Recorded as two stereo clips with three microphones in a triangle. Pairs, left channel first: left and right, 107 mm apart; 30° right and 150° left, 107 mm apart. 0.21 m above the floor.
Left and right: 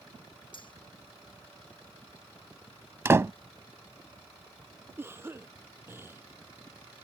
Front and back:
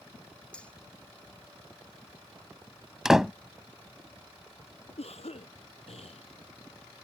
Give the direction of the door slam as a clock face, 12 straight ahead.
4 o'clock.